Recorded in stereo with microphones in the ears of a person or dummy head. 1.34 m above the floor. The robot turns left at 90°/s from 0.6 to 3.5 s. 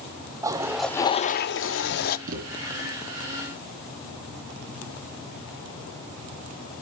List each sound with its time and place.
0.4 s a toilet flushing: 165° right, 0.7 m; by 2.2 s 50° left, 0.7 m
2.3 s a thud: 45° right (ahead or behind), 3 m; by 2.5 s 65° right (ahead or behind), 3 m